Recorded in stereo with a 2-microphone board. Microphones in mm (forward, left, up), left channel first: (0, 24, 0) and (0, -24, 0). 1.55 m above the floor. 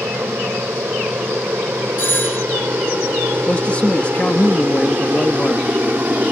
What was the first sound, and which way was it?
An aircraft, 60° right (ahead or behind).